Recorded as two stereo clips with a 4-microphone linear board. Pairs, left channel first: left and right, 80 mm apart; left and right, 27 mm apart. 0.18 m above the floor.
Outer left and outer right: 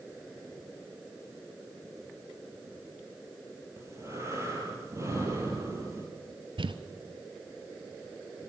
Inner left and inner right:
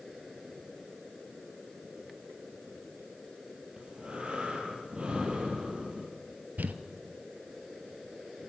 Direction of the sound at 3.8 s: 35° right (ahead or behind).